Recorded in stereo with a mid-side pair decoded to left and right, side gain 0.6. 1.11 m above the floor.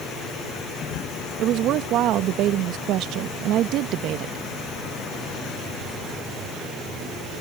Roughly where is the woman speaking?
Ahead right.